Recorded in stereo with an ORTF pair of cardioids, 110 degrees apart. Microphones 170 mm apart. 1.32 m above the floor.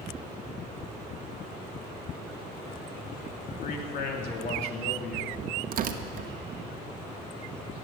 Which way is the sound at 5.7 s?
55° right.